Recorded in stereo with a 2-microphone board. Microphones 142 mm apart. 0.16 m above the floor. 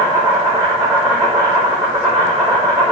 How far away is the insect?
About 1.1 m.